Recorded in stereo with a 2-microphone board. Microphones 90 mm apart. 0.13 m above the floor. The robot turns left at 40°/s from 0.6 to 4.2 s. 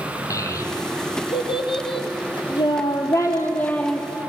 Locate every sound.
0.3 s a child speaking: 35° left (ahead or behind), 3 m; by 4.1 s centre (ahead or behind), 3 m